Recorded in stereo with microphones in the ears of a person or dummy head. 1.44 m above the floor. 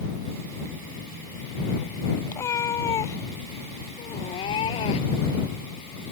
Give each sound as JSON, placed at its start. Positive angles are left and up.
{"t": 2.3, "sound": "a cat meowing", "side_deg": 15}